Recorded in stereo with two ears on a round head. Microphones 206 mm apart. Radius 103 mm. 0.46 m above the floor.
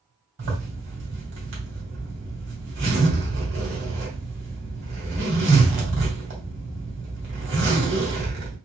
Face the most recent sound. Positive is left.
turn(degrees=-50)  # may be behind; listen again after turning